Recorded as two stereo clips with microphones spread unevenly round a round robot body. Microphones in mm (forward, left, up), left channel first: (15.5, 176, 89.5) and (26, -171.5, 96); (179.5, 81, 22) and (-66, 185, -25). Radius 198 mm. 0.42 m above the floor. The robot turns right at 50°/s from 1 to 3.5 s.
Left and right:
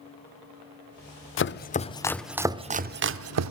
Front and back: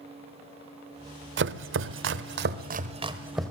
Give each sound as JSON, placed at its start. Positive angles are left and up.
{"t": 1.4, "sound": "chopping", "azimuth_deg": 135, "distance_m": 0.9}